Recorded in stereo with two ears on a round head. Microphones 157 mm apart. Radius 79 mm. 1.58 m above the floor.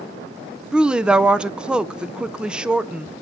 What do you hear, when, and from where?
0.7 s a woman speaking: 5° right (ahead or behind), 0.5 m